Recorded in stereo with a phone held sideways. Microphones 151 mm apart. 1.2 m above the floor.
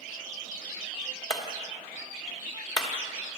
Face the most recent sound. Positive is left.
turn(degrees=30)  # may be behind; listen again after turning